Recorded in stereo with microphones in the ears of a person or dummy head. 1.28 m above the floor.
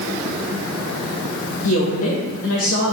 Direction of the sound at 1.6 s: 75° left (ahead or behind).